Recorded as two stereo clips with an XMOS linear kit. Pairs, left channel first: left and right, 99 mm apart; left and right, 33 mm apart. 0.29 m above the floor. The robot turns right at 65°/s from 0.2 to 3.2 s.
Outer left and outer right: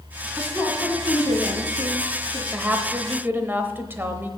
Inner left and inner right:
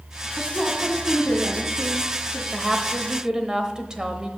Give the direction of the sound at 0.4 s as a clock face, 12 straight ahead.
11 o'clock.